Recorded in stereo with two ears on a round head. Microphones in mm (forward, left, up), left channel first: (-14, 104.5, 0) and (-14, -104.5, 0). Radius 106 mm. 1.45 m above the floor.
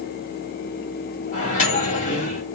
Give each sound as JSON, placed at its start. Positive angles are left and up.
{"t": 1.3, "sound": "a microwave", "side_deg": 30, "distance_m": 1.5}